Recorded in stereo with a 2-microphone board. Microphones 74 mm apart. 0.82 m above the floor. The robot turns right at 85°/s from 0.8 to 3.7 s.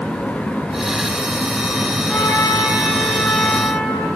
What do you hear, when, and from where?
2.1 s a trumpet: 15° left, 3.5 m; by 4.1 s 155° left, 3.5 m